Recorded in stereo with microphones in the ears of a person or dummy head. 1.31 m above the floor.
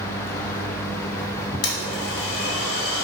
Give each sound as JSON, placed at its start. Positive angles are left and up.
{"t": 1.6, "sound": "a blender", "side_deg": 50, "distance_m": 0.7}